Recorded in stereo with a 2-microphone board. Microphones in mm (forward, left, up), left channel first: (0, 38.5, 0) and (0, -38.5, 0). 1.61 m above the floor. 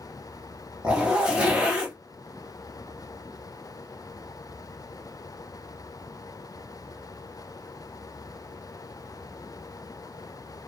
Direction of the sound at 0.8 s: 10° right (ahead or behind).